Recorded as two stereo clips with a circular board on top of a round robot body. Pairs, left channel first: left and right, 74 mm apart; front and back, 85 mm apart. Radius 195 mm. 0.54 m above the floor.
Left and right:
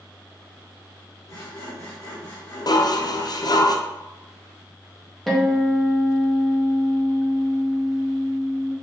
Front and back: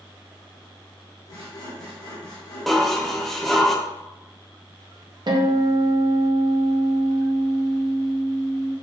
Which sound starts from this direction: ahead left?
Sawing, at 1.3 s.